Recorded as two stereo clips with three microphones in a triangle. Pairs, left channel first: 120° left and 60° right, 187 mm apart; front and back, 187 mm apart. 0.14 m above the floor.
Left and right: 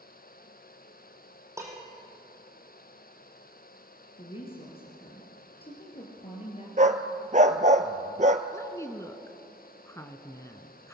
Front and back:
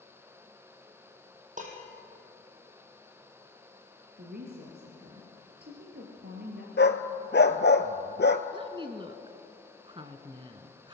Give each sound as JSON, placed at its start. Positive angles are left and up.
{"t": 1.6, "sound": "dishes clattering", "azimuth_deg": -135, "distance_m": 3.5}
{"t": 4.2, "sound": "a woman speaking", "azimuth_deg": 175, "distance_m": 3.5}
{"t": 6.8, "sound": "a dog barking", "azimuth_deg": -10, "distance_m": 0.9}
{"t": 8.5, "sound": "a woman speaking", "azimuth_deg": 175, "distance_m": 1.3}